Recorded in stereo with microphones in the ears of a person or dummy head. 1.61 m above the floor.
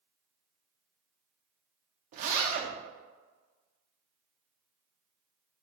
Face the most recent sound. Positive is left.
turn(degrees=-35)  # may be behind; listen again after turning